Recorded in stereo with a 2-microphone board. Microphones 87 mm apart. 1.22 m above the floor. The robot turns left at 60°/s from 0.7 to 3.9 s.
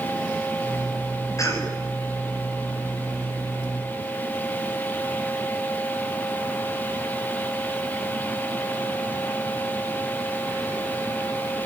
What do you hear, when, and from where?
1.4 s a cough: 40° left (ahead or behind), 7.5 m; by 1.7 s 20° left (ahead or behind), 7.5 m